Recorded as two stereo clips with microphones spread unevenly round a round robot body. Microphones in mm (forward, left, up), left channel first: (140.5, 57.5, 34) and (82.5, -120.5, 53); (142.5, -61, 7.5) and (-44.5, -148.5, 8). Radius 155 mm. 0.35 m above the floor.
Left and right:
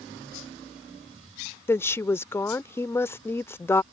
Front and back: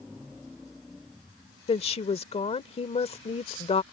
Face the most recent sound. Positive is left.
turn(degrees=25)